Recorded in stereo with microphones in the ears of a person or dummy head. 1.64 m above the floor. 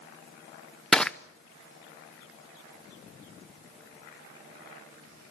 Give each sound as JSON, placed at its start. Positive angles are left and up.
{"t": 0.9, "sound": "crushing", "side_deg": 5, "distance_m": 0.7}